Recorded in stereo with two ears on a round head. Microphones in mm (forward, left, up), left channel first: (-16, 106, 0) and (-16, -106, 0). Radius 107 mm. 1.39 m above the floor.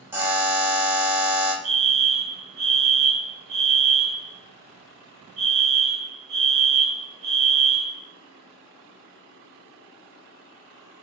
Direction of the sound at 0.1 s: 10° right (ahead or behind).